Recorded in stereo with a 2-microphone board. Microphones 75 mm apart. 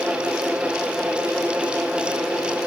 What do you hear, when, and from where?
Only background noise.